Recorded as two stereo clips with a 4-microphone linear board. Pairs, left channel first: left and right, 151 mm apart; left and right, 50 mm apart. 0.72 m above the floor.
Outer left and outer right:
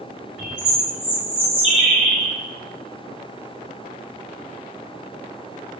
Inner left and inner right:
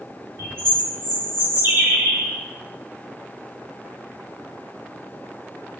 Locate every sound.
0.4 s a bird: 50° right (ahead or behind), 2.5 m